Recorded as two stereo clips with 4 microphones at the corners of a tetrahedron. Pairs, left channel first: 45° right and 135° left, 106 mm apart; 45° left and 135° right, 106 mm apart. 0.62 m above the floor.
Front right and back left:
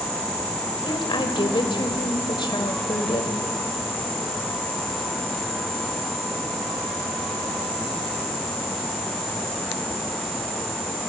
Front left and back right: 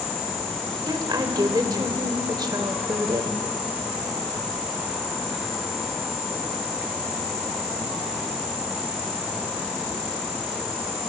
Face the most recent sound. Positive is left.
turn(degrees=-85)